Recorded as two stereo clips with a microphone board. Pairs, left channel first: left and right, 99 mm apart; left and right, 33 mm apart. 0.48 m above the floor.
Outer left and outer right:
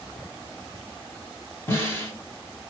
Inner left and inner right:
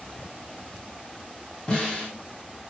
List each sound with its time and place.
1.7 s a snare drum: 25° left (ahead or behind), 1.1 m